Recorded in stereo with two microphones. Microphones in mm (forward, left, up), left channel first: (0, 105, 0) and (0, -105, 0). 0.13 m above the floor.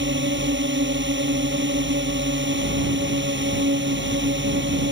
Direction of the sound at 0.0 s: 60° right (ahead or behind).